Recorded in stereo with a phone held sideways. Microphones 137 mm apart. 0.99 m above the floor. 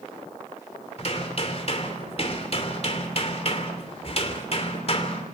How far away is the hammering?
About 2.5 m.